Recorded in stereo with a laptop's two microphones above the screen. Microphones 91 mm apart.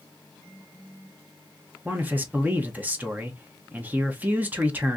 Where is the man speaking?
20° right (ahead or behind), 0.8 m.